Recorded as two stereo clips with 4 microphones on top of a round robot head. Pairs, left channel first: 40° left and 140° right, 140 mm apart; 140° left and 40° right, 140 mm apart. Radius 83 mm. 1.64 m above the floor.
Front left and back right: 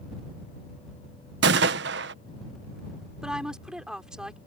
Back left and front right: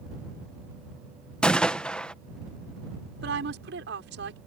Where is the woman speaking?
50° right.